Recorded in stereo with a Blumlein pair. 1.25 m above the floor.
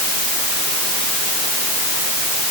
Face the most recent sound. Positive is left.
No sound to turn to.